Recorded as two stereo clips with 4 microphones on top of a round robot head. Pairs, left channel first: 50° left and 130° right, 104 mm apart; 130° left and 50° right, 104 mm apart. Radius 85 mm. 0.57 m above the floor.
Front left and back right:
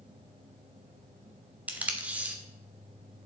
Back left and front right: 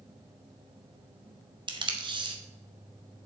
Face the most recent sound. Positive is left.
turn(degrees=-60)